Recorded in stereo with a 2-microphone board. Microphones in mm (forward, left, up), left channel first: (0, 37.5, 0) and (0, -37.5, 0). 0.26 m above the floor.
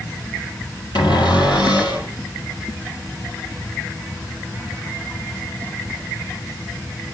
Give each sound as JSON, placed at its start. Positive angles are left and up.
{"t": 0.9, "sound": "a cupboard door", "side_deg": 80, "distance_m": 6.0}